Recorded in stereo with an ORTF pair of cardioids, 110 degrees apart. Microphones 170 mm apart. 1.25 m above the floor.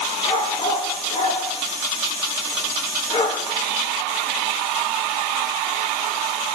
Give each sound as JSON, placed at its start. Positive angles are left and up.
{"t": 0.2, "sound": "a dog barking", "azimuth_deg": 30, "distance_m": 7.0}